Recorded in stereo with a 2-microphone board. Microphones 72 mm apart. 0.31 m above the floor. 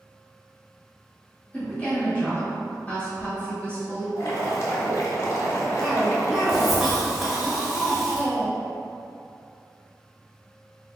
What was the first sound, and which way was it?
A woman speaking, 20° left (ahead or behind).